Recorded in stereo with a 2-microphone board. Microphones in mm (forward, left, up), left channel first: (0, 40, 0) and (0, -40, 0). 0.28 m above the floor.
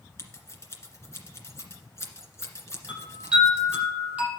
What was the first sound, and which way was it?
Scissors, 35° left (ahead or behind).